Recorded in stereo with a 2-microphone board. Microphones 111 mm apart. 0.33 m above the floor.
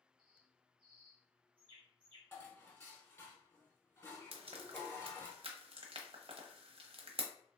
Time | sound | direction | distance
0.2 | a bird | 50° right (ahead or behind) | 1.6 m
2.3 | dishes clattering | 20° left (ahead or behind) | 1.1 m
4.3 | frying | 55° right (ahead or behind) | 0.8 m